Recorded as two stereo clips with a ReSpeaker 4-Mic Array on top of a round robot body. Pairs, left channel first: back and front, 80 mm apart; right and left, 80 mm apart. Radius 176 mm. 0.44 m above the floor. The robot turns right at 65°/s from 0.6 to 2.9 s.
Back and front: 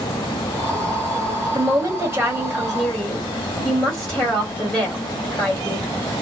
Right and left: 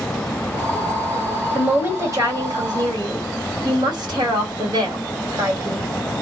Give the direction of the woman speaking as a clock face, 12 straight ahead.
11 o'clock.